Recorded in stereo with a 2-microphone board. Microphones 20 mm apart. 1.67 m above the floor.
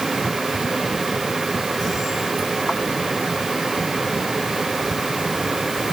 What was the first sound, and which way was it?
Only background noise.